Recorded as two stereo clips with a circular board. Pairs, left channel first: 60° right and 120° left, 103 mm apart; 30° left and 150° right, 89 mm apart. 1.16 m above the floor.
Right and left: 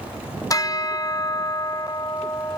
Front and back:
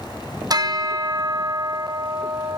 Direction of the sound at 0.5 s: 115° right.